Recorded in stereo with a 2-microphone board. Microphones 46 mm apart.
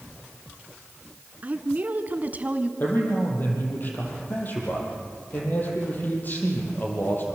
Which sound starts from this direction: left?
A man speaking, at 2.8 s.